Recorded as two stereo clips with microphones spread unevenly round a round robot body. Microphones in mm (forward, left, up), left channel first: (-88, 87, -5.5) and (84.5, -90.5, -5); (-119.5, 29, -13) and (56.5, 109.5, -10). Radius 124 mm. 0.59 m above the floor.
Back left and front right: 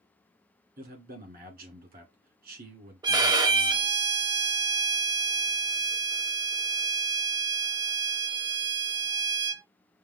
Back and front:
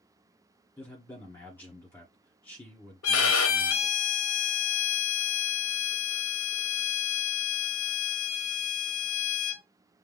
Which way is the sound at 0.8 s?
80° right.